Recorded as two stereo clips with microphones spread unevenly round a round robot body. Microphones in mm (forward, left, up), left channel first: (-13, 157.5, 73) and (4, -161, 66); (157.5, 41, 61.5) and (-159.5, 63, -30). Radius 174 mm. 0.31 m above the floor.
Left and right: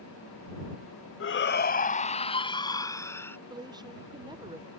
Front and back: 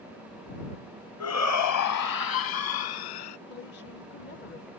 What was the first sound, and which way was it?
A shout, 45° left.